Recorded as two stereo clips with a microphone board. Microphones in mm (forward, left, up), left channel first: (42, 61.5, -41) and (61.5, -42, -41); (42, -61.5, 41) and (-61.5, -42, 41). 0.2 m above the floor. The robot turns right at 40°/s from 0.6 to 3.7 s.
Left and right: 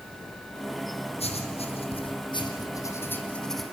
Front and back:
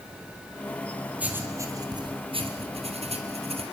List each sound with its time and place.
1.2 s writing: 95° left, 3 m; by 3.6 s 170° right, 3 m